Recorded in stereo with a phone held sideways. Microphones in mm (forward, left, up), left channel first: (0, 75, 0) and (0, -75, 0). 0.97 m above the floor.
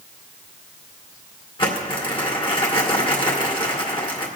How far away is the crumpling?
About 2 m.